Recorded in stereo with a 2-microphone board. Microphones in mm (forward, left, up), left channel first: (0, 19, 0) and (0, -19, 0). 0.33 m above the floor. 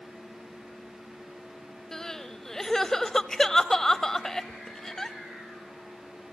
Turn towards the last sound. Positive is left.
turn(degrees=15)  # may be behind; listen again after turning